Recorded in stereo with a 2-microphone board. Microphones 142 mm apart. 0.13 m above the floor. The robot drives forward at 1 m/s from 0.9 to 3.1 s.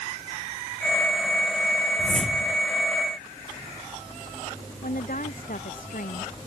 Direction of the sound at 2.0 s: 5° left (ahead or behind).